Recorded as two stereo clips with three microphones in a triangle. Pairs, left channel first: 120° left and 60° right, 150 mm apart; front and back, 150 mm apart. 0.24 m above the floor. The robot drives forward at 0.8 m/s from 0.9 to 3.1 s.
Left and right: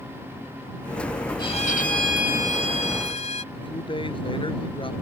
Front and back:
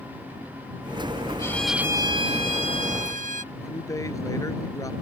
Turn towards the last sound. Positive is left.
turn(degrees=65)